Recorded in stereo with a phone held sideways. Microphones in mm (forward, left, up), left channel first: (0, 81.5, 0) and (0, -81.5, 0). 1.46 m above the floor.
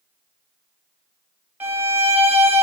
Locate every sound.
1.6 s a violin: 10° right (ahead or behind), 1.1 m